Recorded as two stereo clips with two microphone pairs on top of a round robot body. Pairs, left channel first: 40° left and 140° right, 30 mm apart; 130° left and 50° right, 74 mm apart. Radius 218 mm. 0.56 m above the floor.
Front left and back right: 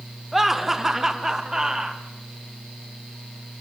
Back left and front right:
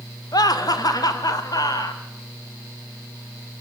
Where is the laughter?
140° left, 2.5 m; by 2.0 s 155° left, 3 m.